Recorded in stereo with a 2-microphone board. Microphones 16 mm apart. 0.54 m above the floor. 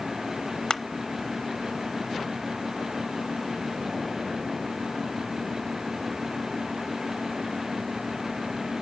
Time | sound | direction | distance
0.7 | crushing | 55° left (ahead or behind) | 0.6 m